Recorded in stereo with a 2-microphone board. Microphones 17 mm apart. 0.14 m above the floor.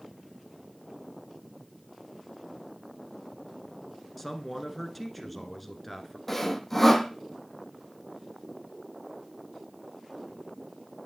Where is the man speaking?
5° left (ahead or behind), 1.5 m.